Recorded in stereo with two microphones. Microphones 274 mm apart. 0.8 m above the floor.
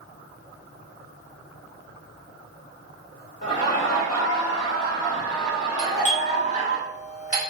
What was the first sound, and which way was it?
Laughter, 35° left (ahead or behind).